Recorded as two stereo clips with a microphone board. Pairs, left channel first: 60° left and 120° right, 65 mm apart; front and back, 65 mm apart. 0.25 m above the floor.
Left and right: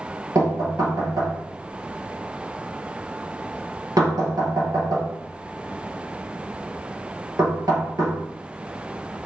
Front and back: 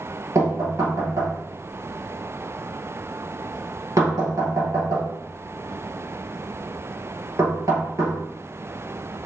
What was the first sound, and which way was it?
Knocking, 145° right.